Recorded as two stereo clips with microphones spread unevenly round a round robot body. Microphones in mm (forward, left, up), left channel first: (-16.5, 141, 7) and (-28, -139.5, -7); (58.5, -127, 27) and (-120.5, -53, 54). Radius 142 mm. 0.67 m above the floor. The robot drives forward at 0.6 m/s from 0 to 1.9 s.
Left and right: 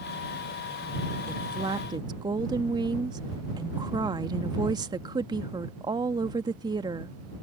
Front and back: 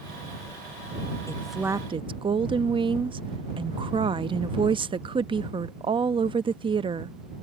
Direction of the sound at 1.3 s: 45° right.